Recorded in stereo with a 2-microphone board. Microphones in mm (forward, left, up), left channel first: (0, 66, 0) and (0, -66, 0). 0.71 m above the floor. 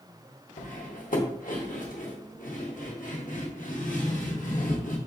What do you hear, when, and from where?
0.6 s cutlery clinking: 85° left, 0.9 m